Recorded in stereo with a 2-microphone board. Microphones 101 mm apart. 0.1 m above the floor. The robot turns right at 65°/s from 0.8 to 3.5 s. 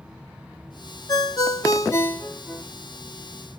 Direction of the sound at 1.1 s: 75° left.